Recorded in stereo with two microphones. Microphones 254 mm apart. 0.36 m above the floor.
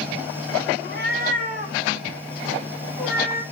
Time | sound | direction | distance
0.8 | a cat meowing | 45° right (ahead or behind) | 1.5 m